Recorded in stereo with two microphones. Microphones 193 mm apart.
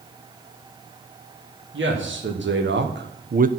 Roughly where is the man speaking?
Right.